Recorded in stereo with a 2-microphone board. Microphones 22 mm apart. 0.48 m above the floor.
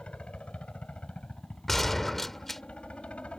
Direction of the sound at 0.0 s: 60° left (ahead or behind).